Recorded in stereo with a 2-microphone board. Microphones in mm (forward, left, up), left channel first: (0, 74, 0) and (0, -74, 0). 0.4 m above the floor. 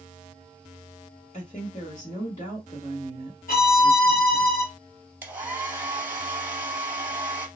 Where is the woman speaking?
50° left (ahead or behind), 1.9 m.